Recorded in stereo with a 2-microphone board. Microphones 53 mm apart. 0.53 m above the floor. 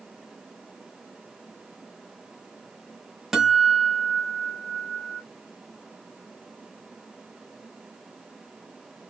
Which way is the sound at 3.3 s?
5° right (ahead or behind).